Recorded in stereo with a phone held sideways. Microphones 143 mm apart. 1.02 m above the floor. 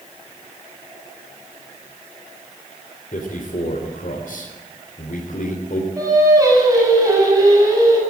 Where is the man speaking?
75° left (ahead or behind), 3.5 m.